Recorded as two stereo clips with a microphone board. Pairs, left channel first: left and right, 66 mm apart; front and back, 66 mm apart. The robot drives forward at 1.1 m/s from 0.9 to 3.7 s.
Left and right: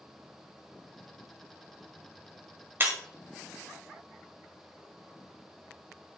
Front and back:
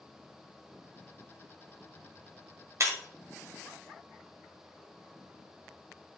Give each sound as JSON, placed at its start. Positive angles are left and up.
{"t": 2.8, "sound": "breaking glass", "azimuth_deg": -140, "distance_m": 1.4}